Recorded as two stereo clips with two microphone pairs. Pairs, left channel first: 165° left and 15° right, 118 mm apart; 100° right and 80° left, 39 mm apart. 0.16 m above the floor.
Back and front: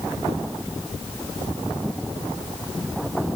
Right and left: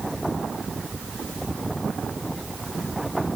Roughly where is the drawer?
No drawer in this recording.